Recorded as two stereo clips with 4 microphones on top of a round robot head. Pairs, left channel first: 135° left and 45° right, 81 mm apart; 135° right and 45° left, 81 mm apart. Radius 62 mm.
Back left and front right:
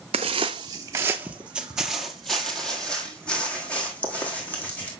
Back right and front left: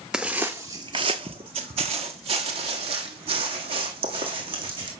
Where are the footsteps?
35° right, 0.9 m; by 4.9 s 65° left, 3 m.